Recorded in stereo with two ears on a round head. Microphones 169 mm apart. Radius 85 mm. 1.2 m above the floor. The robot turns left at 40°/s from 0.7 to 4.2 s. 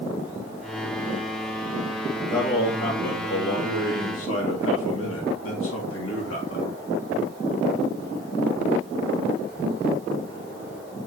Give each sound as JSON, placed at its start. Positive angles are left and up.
{"t": 2.3, "sound": "a man speaking", "azimuth_deg": 160, "distance_m": 2.5}